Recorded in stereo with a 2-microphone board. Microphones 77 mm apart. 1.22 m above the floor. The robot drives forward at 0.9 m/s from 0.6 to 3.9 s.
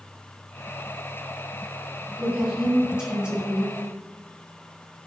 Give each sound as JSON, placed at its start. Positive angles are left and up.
{"t": 2.2, "sound": "a woman speaking", "side_deg": -15, "distance_m": 3.0}